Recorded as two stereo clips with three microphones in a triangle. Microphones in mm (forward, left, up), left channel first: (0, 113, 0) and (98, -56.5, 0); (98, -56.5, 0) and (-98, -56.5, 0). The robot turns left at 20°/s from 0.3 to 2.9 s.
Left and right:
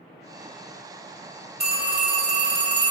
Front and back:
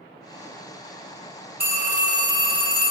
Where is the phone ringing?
120° right, 1.0 m; by 2.9 s 145° right, 1.0 m.